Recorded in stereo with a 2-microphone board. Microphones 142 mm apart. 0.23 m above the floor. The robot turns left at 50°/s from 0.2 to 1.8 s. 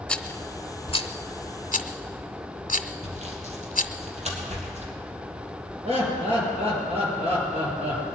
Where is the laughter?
45° right (ahead or behind), 5.5 m.